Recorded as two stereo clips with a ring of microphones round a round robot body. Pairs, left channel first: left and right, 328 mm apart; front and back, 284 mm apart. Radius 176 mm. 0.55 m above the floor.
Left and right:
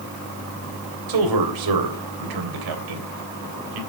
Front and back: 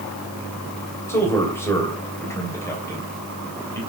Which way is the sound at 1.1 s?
80° right.